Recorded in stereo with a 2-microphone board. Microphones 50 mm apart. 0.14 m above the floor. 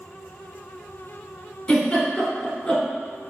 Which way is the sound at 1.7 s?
25° left (ahead or behind).